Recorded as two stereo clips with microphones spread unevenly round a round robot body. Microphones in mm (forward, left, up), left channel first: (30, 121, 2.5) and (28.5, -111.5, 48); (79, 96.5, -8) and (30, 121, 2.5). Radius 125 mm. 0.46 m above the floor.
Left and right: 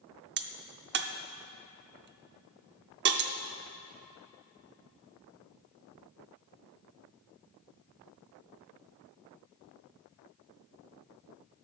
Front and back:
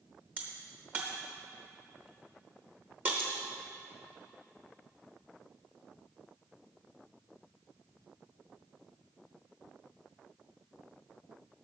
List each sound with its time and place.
0.4 s a crack: 130° right, 0.7 m